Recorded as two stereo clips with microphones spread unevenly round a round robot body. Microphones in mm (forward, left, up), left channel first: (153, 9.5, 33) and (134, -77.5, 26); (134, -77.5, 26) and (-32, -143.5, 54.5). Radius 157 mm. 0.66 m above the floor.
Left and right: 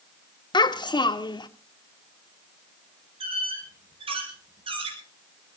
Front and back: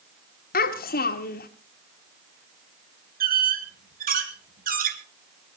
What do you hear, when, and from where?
0.5 s a child speaking: 45° left, 1.2 m
3.2 s a squeak: 130° right, 1.6 m